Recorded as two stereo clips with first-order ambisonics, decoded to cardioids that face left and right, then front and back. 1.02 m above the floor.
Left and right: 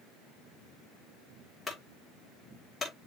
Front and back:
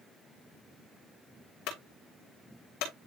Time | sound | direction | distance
1.7 | a clunk | 20° left | 3 m